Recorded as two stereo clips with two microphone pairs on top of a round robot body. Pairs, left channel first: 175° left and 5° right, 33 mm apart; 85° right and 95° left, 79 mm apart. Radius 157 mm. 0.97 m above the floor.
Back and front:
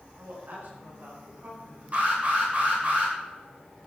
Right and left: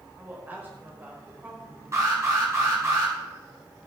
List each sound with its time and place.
0.2 s a woman speaking: 25° left, 4.5 m
1.9 s an alarm: 40° left, 7 m